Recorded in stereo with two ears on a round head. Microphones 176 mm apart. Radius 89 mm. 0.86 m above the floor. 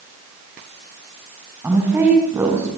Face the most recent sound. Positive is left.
turn(degrees=-15)  # may be behind; listen again after turning